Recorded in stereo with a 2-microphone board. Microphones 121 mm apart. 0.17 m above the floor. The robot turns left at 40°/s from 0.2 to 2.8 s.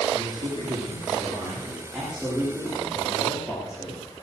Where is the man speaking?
100° right, 9 m; by 4.0 s 155° left, 9 m.